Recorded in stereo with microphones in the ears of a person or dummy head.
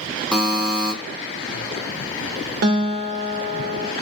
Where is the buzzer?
5° right (ahead or behind), 0.8 m.